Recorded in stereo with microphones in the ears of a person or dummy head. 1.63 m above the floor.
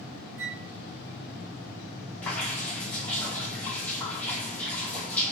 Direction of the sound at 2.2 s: 10° left (ahead or behind).